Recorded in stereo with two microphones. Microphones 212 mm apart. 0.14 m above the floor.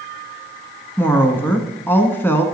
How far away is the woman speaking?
About 1.0 m.